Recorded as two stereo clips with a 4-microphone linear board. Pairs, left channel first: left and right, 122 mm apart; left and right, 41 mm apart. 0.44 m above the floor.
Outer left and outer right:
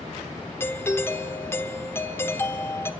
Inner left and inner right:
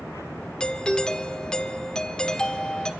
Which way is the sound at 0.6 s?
20° left (ahead or behind).